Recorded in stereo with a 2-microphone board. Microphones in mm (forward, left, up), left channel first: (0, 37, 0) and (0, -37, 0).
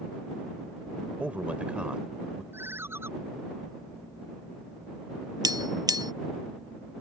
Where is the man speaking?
20° right (ahead or behind); by 2.4 s 10° right (ahead or behind).